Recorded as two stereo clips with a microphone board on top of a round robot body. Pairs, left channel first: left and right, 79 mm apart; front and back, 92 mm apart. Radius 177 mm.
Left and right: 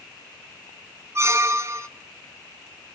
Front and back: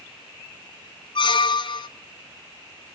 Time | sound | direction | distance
1.1 | a squeak | 35° right | 0.9 m